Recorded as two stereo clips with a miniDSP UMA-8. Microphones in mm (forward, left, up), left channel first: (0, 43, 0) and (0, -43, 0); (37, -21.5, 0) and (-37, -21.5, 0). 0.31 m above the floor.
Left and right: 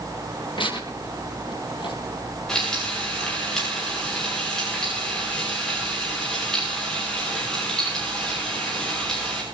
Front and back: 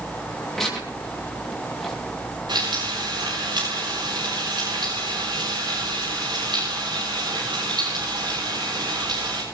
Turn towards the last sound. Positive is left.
turn(degrees=175)